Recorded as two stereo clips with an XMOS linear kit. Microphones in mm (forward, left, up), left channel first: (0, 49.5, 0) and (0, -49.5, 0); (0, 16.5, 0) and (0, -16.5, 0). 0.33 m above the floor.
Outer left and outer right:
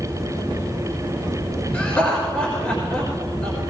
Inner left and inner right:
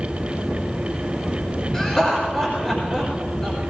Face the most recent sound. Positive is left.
turn(degrees=20)  # may be behind; listen again after turning